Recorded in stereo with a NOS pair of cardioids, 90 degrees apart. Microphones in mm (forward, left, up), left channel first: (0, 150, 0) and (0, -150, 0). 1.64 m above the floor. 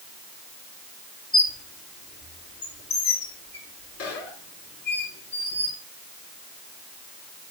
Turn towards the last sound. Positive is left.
turn(degrees=50)